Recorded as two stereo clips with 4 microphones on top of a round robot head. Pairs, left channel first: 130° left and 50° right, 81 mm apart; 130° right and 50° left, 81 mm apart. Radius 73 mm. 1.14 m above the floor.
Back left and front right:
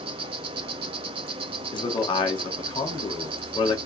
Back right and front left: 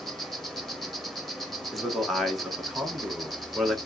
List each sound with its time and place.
0.0 s an insect: 40° right, 0.7 m
1.7 s a man speaking: 140° left, 1.6 m